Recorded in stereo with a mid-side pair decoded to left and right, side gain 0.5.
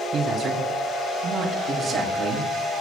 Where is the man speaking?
50° right, 7 m.